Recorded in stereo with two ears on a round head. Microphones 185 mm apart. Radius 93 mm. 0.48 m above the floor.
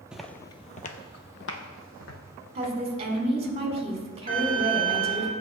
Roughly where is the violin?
Right.